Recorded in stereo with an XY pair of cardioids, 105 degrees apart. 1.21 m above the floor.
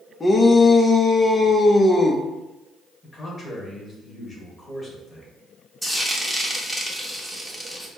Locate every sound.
0.2 s a shout: 25° left, 0.9 m
3.0 s a man speaking: 20° left, 2 m
5.8 s frying: 5° right, 1.1 m